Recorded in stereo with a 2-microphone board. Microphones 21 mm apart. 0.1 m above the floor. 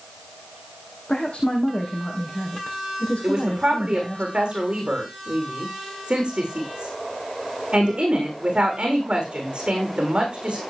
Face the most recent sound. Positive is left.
turn(degrees=-45)  # may be behind; listen again after turning